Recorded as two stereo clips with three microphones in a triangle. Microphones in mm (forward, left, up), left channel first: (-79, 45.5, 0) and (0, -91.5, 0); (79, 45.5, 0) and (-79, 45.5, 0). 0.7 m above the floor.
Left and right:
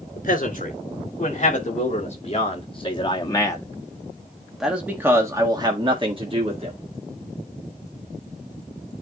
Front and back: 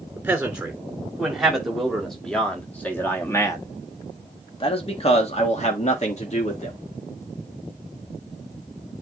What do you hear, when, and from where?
0.2 s a man speaking: 100° left, 3 m; by 6.8 s 30° right, 1.9 m